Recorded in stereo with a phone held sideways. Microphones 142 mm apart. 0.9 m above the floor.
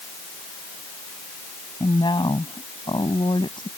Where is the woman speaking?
35° left (ahead or behind).